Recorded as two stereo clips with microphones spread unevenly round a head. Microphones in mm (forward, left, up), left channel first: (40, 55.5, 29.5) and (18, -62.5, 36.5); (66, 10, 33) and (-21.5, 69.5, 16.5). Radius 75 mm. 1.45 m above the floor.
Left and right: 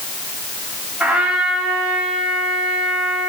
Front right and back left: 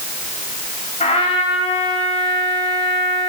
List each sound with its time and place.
1.0 s a trumpet: 20° right, 5.5 m